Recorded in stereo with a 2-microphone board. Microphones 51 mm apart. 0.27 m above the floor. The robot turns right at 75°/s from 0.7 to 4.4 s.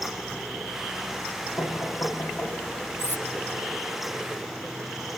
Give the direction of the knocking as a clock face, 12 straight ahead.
9 o'clock.